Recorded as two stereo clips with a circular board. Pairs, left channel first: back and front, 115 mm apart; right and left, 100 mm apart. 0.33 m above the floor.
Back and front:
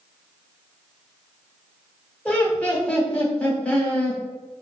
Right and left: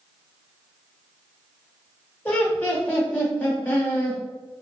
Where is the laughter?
120° right, 0.9 m.